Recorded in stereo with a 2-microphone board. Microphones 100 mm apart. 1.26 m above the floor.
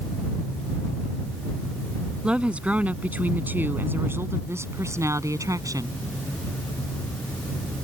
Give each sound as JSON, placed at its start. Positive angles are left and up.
{"t": 2.2, "sound": "a woman speaking", "side_deg": -10}